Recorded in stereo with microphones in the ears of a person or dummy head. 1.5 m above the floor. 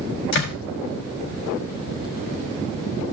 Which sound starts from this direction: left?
A door slam, at 0.3 s.